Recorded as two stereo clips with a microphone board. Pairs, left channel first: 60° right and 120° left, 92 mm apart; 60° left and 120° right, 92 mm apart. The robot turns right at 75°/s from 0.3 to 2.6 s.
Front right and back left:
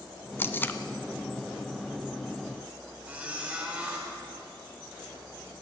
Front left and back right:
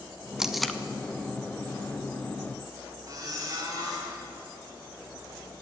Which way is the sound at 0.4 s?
45° right.